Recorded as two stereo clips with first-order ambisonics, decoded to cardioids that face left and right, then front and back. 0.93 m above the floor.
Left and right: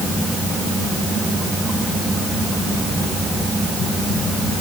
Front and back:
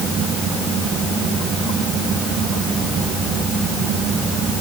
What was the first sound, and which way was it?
Only background noise.